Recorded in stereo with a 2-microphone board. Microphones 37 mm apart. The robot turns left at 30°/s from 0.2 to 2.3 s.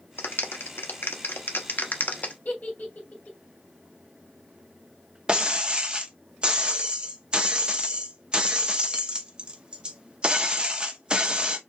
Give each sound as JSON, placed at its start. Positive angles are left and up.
{"t": 0.2, "sound": "a clap", "side_deg": 75, "distance_m": 0.9}
{"t": 2.5, "sound": "a giggle", "side_deg": 50, "distance_m": 2.5}
{"t": 5.3, "sound": "breaking glass", "side_deg": -25, "distance_m": 0.7}